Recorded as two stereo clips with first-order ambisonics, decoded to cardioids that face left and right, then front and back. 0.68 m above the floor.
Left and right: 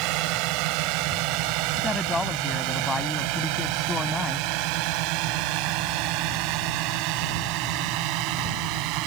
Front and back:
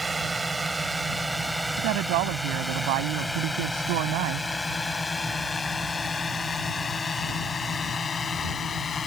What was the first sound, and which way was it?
A drone, 100° right.